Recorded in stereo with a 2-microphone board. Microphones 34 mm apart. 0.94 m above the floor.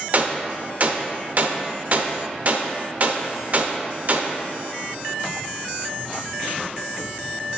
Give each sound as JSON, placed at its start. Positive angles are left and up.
{"t": 0.1, "sound": "a gunshot", "side_deg": -45, "distance_m": 0.7}